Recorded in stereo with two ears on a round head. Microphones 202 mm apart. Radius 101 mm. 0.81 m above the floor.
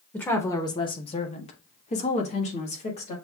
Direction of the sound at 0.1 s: 5° left (ahead or behind).